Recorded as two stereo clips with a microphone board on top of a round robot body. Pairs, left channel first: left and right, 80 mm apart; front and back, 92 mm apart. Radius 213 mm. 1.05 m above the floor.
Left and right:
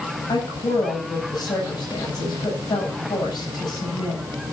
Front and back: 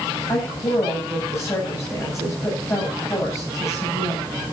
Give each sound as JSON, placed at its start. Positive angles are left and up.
{"t": 0.3, "sound": "a woman speaking", "azimuth_deg": 60, "distance_m": 8.0}